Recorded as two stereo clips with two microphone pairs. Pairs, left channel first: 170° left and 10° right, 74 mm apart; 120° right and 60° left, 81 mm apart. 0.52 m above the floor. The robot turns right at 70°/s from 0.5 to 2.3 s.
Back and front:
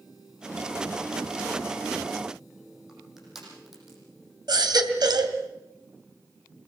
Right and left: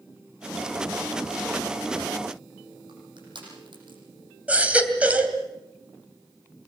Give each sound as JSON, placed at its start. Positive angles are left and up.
{"t": 2.9, "sound": "crushing", "azimuth_deg": 75, "distance_m": 9.0}
{"t": 4.5, "sound": "a baby crying", "azimuth_deg": -10, "distance_m": 2.5}